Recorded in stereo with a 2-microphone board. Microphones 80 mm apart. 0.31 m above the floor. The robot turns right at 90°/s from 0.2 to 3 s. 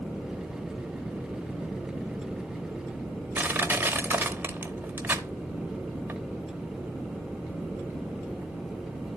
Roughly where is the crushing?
Right.